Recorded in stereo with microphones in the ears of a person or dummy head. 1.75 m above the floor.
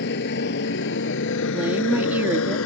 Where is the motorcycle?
65° left (ahead or behind); by 2.7 s 85° left.